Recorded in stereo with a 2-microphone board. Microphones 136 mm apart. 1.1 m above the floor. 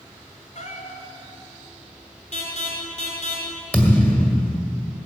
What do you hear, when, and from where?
0.6 s a cat meowing: 60° left (ahead or behind), 2 m
2.3 s an alarm: 60° left (ahead or behind), 3.5 m
3.7 s a thud: 10° left (ahead or behind), 1.8 m